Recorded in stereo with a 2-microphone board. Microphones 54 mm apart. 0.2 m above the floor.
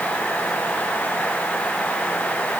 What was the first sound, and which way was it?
Only background noise.